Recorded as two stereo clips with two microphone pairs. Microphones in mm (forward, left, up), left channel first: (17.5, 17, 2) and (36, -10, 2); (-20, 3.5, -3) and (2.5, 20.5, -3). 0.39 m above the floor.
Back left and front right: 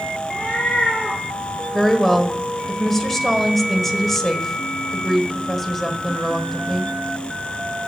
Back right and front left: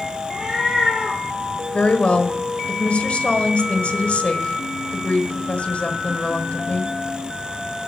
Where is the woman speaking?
155° right, 1.4 m.